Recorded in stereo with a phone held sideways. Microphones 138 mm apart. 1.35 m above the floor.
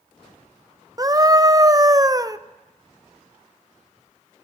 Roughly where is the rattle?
No rattle in this recording.